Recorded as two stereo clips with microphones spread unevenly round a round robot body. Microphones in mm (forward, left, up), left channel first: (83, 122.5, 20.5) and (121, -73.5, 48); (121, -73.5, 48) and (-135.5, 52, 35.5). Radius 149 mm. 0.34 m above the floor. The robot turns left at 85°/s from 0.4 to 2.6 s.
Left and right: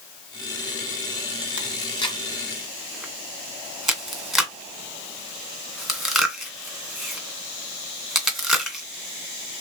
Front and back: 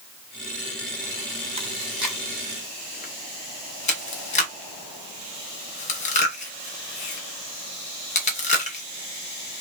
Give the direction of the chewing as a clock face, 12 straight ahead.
8 o'clock.